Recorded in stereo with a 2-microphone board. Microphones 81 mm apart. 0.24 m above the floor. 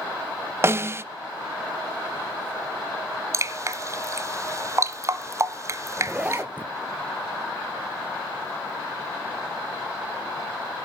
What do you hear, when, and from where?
0.6 s a snare drum: 30° right (ahead or behind), 0.6 m
3.3 s dripping: 35° right (ahead or behind), 0.8 m
6.0 s a zipper: 20° right (ahead or behind), 0.9 m